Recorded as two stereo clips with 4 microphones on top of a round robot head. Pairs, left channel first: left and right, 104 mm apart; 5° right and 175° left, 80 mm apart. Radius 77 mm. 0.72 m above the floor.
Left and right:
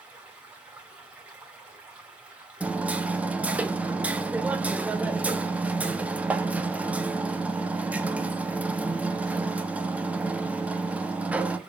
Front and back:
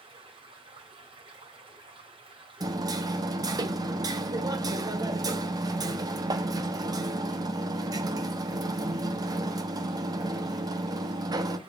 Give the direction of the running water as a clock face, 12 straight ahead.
6 o'clock.